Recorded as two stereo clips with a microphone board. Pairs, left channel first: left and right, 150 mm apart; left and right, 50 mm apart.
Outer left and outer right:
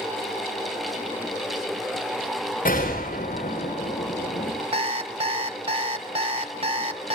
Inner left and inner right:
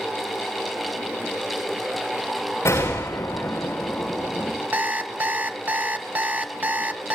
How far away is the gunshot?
About 6.5 m.